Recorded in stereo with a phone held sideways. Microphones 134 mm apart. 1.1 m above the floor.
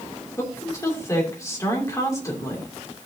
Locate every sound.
0.4 s a woman speaking: 25° left (ahead or behind), 3 m